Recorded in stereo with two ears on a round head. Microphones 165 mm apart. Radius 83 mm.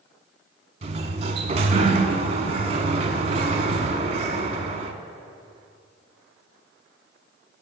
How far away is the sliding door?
About 0.8 m.